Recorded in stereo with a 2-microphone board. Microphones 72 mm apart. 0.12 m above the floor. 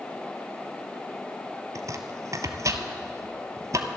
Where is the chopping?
50° right (ahead or behind), 0.8 m.